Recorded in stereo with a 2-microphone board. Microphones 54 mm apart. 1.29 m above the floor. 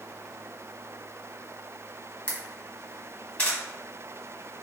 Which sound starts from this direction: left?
A camera shutter, at 2.3 s.